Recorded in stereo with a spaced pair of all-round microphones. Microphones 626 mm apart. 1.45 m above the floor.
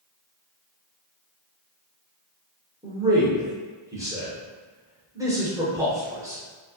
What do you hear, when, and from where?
2.8 s a man speaking: 5° right (ahead or behind), 1.1 m